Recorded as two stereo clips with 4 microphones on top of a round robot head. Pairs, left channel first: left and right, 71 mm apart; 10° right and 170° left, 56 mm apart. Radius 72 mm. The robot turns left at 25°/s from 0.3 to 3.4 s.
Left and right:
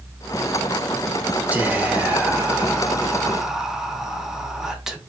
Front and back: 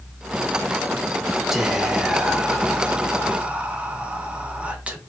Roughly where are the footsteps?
I don't hear footsteps.